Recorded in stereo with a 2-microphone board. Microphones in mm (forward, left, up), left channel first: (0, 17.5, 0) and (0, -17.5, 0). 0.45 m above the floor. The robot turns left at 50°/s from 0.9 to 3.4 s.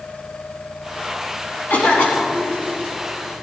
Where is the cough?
105° left, 4 m; by 2.6 s 60° left, 4 m.